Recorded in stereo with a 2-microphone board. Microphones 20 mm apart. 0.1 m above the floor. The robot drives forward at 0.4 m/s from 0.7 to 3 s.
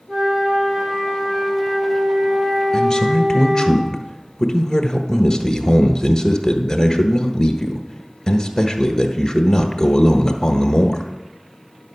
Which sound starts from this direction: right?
A flute, at 0.1 s.